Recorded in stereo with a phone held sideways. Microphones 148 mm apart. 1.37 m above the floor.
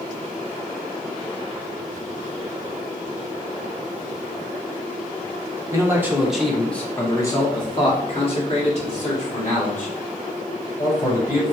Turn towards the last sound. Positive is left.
turn(degrees=60)  # may be behind; listen again after turning